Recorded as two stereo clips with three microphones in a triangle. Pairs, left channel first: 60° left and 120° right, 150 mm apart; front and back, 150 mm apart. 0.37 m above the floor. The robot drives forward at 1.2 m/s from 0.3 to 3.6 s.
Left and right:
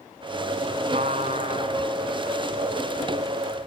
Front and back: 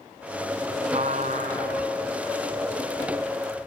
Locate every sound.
0.9 s a trumpet: 145° right, 1.0 m; by 1.9 s 165° right, 2 m